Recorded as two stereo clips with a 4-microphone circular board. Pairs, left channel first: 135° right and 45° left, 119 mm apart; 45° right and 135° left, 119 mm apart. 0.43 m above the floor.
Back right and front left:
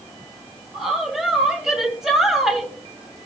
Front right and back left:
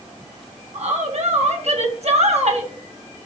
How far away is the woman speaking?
About 2.5 m.